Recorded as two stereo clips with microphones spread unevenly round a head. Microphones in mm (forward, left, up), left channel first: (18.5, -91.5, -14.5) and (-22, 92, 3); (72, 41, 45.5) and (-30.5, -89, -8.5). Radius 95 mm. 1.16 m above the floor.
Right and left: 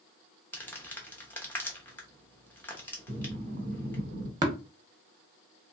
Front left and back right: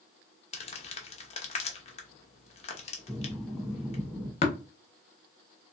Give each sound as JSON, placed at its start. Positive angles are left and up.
{"t": 0.5, "sound": "crumpling", "azimuth_deg": 5, "distance_m": 0.9}
{"t": 3.1, "sound": "breathing", "azimuth_deg": 130, "distance_m": 1.2}
{"t": 4.4, "sound": "tapping", "azimuth_deg": 40, "distance_m": 0.9}